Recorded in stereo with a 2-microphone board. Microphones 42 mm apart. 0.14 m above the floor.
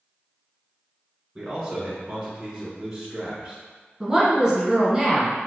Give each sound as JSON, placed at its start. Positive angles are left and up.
{"t": 1.4, "sound": "a man speaking", "side_deg": -15, "distance_m": 1.3}
{"t": 4.0, "sound": "a woman speaking", "side_deg": -15, "distance_m": 1.3}